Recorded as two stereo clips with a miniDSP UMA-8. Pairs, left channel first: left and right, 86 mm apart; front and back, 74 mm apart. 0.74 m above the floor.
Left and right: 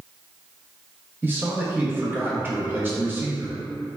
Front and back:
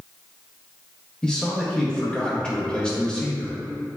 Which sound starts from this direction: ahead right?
A man speaking, at 1.2 s.